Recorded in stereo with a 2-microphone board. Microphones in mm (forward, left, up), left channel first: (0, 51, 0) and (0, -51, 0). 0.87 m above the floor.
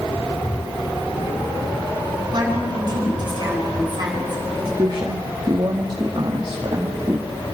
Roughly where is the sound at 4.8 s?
Right.